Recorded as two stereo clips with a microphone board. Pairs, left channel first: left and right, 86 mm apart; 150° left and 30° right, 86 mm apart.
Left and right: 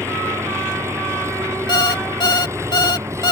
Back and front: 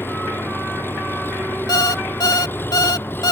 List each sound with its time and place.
0.0 s an engine running: 145° right
1.7 s an alarm clock: 115° left